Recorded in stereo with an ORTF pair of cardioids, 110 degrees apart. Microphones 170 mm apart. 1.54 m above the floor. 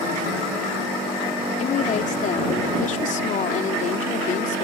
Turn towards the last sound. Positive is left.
turn(degrees=50)